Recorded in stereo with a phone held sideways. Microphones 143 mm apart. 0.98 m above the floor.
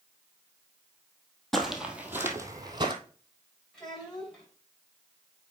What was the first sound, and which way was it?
Footsteps, 5° left (ahead or behind).